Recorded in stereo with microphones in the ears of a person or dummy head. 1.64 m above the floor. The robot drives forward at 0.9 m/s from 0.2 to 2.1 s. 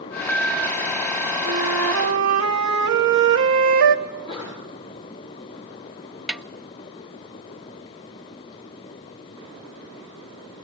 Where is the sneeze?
20° left (ahead or behind), 6 m.